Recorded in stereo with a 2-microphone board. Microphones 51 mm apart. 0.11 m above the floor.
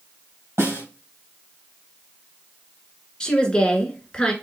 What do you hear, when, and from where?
0.6 s a snare drum: 70° right (ahead or behind), 2.5 m
3.2 s a woman speaking: 20° left (ahead or behind), 1.2 m